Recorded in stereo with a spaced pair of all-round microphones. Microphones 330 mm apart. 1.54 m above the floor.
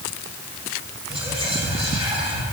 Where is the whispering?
15° right (ahead or behind), 2.5 m.